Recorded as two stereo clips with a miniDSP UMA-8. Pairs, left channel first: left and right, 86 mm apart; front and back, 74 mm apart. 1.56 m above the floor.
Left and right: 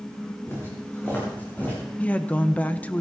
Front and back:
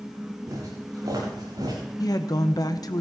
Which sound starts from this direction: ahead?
A woman speaking, at 2.0 s.